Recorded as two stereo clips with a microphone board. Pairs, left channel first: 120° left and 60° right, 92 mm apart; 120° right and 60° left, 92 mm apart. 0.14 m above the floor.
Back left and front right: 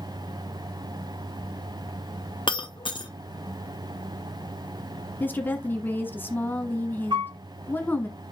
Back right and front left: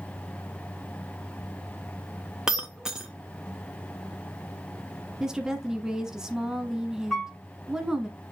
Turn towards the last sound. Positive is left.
turn(degrees=-35)